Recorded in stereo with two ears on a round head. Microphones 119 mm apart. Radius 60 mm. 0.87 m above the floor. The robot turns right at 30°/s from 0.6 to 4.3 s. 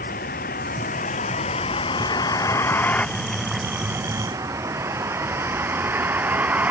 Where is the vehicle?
70° left (ahead or behind); by 6.7 s 10° right (ahead or behind).